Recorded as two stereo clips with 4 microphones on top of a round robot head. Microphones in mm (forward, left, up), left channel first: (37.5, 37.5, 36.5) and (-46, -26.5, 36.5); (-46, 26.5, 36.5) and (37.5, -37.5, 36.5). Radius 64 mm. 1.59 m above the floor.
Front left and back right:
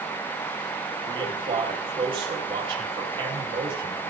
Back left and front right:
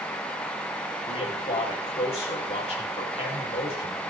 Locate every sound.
1.1 s a man speaking: 175° left, 7 m